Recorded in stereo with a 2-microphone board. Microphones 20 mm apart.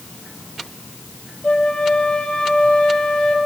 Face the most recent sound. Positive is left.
turn(degrees=70)  # may be behind; listen again after turning